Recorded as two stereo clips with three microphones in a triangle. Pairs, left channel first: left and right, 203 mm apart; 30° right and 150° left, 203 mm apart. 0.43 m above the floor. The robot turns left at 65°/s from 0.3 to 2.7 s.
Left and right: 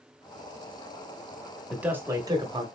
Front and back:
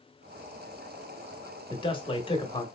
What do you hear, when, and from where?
1.7 s a man speaking: 10° right, 0.8 m; by 2.6 s 70° right, 0.8 m